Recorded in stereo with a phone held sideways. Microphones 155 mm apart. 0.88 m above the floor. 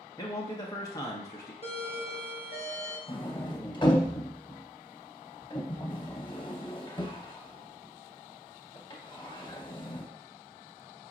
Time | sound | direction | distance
0.2 | a man speaking | 20° left (ahead or behind) | 0.7 m
1.6 | a doorbell | 40° left (ahead or behind) | 1.1 m
3.1 | a sliding door | 30° left (ahead or behind) | 0.8 m